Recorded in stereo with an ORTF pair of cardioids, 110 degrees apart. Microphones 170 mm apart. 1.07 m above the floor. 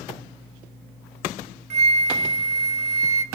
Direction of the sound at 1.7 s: 40° right.